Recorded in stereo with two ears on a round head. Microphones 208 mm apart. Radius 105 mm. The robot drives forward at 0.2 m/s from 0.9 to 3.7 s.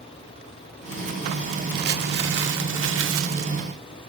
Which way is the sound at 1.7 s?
40° right (ahead or behind).